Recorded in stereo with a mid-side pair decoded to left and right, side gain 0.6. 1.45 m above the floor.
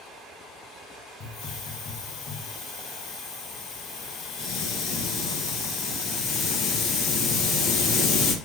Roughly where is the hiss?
Ahead left.